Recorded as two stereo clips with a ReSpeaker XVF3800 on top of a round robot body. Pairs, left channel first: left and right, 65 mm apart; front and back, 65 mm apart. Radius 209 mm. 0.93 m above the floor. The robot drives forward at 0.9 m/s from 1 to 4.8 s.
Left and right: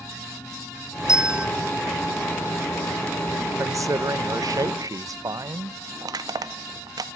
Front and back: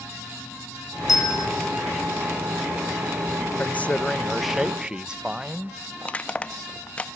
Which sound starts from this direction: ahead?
A bell, at 1.1 s.